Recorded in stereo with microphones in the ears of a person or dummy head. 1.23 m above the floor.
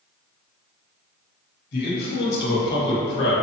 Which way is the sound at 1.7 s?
55° left (ahead or behind).